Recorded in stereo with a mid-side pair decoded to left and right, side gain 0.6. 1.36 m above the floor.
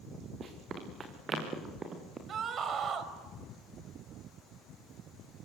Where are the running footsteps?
40° right, 6.5 m; by 2.2 s 30° right, 7 m.